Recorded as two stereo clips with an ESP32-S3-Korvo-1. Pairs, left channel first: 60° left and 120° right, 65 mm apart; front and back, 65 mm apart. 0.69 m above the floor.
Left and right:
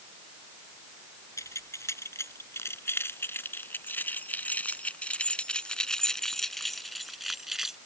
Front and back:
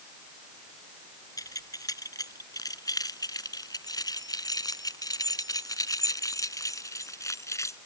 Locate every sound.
1.4 s keys jangling: 20° left; by 7.8 s 35° right